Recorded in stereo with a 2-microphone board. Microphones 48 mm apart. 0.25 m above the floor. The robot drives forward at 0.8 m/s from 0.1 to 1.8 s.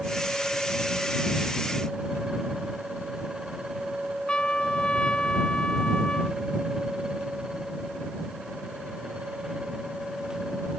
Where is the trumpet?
20° left (ahead or behind).